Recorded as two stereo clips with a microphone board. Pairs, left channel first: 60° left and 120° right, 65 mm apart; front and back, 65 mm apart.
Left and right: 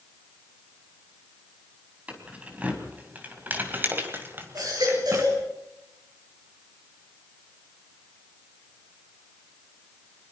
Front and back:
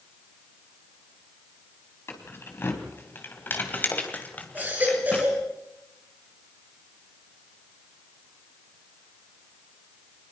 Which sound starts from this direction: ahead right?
Keys jangling, at 2.1 s.